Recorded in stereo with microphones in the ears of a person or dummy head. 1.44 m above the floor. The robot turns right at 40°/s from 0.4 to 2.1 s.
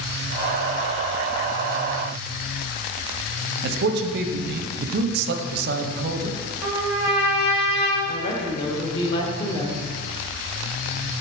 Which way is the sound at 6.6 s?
15° right (ahead or behind).